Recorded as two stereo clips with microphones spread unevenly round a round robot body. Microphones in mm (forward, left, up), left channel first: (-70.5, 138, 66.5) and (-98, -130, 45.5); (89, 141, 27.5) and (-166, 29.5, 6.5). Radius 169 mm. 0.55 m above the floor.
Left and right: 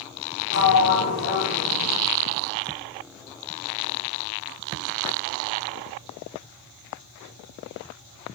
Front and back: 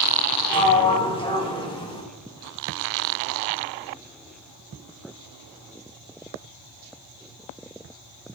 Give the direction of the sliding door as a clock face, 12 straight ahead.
9 o'clock.